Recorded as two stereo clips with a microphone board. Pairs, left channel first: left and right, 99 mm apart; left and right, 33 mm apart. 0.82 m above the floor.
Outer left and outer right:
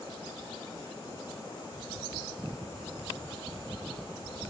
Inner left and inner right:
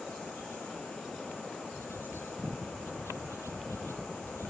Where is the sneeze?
I don't hear a sneeze.